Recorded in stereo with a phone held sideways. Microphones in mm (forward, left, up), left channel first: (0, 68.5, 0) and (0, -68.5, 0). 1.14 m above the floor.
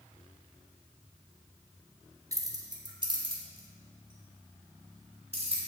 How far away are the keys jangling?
About 1.1 m.